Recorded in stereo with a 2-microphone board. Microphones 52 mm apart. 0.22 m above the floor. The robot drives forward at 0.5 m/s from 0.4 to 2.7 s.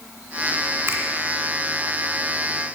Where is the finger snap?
50° right (ahead or behind), 1.7 m; by 1.0 s 45° right (ahead or behind), 1.7 m.